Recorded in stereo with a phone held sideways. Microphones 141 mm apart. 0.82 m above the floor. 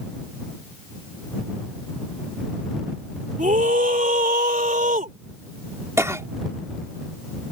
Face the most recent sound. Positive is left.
turn(degrees=-20)  # may be behind; listen again after turning